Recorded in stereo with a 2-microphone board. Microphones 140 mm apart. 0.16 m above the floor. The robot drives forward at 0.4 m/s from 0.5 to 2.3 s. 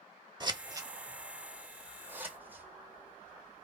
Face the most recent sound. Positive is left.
turn(degrees=-15)  # may be behind; listen again after turning